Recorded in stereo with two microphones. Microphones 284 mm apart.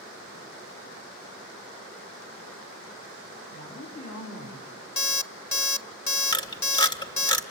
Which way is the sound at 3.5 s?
70° left (ahead or behind).